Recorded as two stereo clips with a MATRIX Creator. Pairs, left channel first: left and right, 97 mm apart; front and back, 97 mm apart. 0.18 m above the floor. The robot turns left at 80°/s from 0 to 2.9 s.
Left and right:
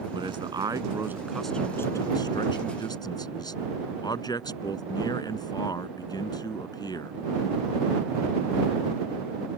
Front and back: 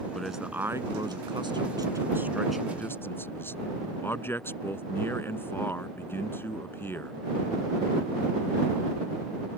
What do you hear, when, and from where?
0.1 s a man speaking: 80° right; by 7.1 s 60° left